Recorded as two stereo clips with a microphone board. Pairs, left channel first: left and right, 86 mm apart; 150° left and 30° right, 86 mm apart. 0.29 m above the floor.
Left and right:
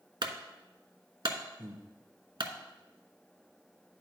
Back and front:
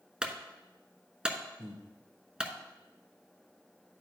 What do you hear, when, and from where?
0.2 s a clunk: 110° right, 0.9 m
1.6 s breathing: 155° right, 1.7 m